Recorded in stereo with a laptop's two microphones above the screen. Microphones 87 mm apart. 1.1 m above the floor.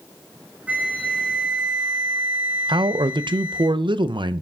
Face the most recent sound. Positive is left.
turn(degrees=-65)  # may be behind; listen again after turning